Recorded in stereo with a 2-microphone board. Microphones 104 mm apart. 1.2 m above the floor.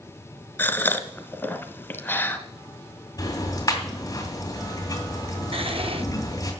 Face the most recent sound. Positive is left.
turn(degrees=-60)  # may be behind; listen again after turning